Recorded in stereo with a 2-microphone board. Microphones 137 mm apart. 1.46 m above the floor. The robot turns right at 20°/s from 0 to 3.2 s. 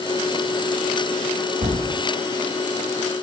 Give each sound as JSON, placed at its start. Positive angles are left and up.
{"t": 1.6, "sound": "a thud", "side_deg": -65, "distance_m": 3.5}